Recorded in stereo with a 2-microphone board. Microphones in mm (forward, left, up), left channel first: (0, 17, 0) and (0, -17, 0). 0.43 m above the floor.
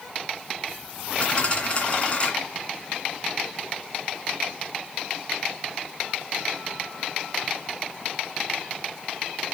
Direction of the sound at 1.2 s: 30° left (ahead or behind).